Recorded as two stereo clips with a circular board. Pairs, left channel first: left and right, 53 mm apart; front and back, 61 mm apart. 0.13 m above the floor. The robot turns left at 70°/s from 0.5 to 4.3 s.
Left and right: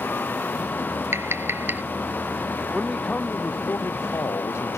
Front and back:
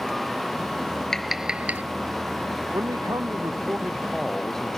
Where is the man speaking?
170° right; by 4.8 s 80° left.